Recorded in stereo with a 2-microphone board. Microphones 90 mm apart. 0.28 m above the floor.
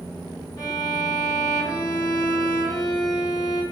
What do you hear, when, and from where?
0.6 s a violin: 45° left (ahead or behind), 0.9 m